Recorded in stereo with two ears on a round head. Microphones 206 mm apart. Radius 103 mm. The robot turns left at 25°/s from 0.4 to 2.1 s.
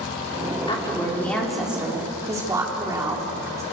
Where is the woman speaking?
20° left, 4.5 m; by 3.6 s 15° right, 4.5 m.